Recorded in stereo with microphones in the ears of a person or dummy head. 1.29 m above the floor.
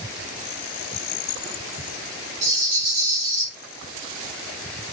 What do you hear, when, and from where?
2.4 s a rattle: 55° right (ahead or behind), 1.8 m